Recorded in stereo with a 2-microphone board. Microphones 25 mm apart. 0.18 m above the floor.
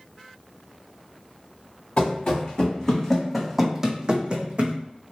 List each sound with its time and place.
2.0 s running footsteps: 40° left (ahead or behind), 1.1 m; by 4.8 s 55° right (ahead or behind), 0.8 m